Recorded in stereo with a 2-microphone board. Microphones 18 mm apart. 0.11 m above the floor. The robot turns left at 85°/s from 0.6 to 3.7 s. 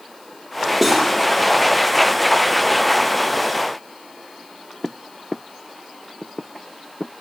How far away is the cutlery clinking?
About 2.0 m.